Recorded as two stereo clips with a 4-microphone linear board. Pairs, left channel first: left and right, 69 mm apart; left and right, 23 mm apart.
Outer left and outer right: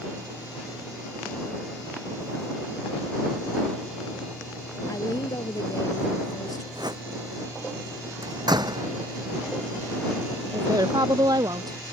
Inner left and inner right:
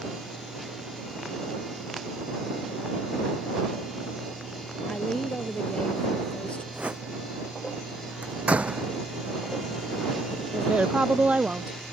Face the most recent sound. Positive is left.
turn(degrees=-70)  # may be behind; listen again after turning